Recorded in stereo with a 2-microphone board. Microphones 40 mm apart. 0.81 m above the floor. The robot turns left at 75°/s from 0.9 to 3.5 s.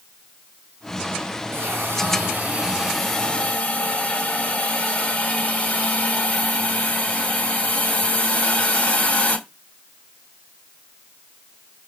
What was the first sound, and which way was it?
A hiss, 75° right.